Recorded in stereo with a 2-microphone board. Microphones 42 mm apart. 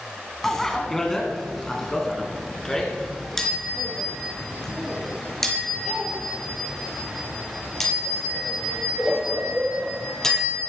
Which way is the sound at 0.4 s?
10° left (ahead or behind).